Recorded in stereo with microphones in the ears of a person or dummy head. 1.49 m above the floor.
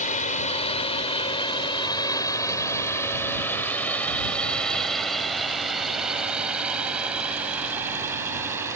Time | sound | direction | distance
0.0 | a drone | 35° left (ahead or behind) | ?